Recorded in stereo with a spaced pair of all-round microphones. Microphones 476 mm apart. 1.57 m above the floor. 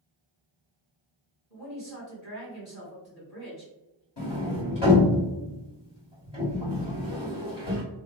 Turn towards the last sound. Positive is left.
turn(degrees=60)  # may be behind; listen again after turning